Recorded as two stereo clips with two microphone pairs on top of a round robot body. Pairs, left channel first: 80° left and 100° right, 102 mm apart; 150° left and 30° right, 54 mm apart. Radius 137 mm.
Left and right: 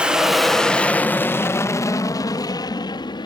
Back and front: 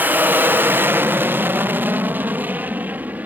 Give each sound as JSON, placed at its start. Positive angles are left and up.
{"t": 0.0, "sound": "an aircraft", "azimuth_deg": -50}